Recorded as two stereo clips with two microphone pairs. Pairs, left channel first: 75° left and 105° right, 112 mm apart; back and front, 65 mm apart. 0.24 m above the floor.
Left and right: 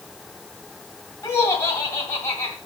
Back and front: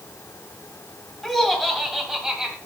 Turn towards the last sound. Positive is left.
turn(degrees=60)